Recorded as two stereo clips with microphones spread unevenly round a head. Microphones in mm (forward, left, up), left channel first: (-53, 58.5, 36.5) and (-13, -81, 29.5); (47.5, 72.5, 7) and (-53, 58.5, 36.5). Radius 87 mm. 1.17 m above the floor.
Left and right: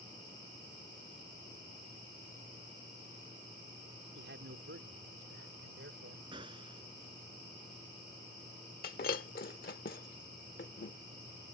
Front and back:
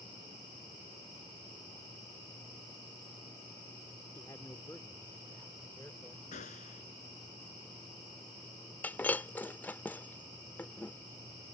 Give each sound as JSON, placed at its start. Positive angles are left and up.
{"t": 4.2, "sound": "a man speaking", "azimuth_deg": -70}
{"t": 6.3, "sound": "a gunshot", "azimuth_deg": -10}
{"t": 8.8, "sound": "breaking glass", "azimuth_deg": 90}